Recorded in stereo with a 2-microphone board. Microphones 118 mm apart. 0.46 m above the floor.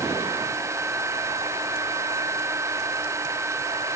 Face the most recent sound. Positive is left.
No sound to turn to.